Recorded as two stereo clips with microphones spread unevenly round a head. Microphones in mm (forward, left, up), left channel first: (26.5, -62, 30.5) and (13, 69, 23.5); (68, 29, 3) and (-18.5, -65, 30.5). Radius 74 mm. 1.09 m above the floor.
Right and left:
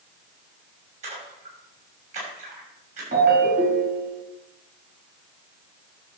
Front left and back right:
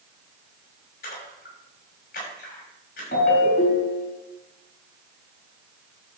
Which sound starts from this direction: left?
A ringtone, at 3.1 s.